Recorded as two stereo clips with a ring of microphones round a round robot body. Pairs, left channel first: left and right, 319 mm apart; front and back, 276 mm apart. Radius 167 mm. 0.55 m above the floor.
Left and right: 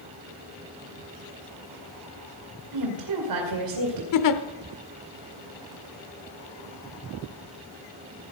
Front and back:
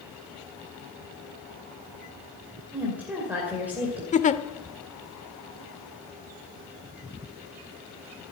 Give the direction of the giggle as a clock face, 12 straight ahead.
10 o'clock.